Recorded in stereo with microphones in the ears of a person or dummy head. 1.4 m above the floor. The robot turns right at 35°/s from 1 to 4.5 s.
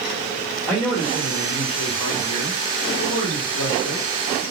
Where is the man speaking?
5° left, 1.1 m; by 4.4 s 125° left, 1.1 m.